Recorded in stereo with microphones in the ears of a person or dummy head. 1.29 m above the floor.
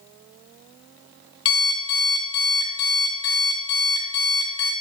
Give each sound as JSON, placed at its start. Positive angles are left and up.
{"t": 1.4, "sound": "an alarm clock", "side_deg": 25, "distance_m": 0.8}